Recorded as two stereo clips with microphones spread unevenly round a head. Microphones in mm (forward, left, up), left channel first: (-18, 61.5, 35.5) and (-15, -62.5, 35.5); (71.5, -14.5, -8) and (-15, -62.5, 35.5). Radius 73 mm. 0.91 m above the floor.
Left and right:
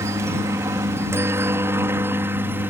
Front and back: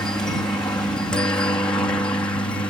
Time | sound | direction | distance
0.0 | a helicopter | 25° right | ?